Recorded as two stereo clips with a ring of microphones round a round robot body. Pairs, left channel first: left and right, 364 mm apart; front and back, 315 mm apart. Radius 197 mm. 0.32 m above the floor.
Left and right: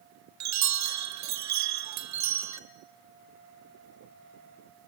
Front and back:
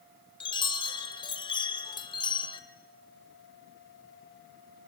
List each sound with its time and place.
0.4 s a chime: 70° right, 1.3 m